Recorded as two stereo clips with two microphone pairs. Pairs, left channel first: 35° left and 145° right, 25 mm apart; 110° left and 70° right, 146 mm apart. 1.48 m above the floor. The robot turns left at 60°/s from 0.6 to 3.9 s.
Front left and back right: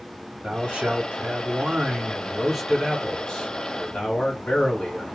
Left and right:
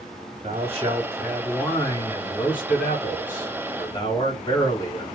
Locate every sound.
0.4 s a man speaking: 110° right, 2 m; by 5.2 s 50° left, 2 m